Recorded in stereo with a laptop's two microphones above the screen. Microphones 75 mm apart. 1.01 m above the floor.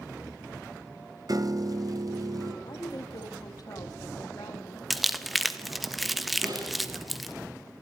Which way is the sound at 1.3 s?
55° right (ahead or behind).